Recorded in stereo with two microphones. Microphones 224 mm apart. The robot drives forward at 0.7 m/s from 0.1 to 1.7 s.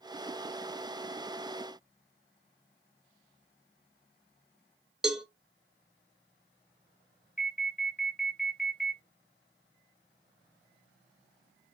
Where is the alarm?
Centre (ahead or behind), 1.7 m.